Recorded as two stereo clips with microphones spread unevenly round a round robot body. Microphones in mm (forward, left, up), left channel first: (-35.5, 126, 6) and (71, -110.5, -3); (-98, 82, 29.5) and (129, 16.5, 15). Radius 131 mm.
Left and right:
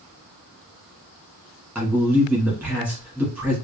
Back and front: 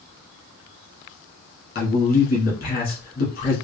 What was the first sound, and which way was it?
A man speaking, 150° right.